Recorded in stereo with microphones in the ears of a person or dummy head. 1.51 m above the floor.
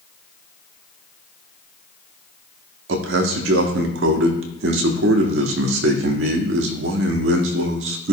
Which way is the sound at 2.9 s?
75° right (ahead or behind).